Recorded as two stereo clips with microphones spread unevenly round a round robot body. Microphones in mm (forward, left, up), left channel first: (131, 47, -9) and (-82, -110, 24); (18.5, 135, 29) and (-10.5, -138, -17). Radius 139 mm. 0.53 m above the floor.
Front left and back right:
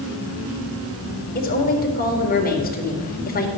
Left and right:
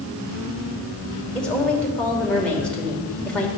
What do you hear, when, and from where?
1.4 s a woman speaking: 10° right, 2 m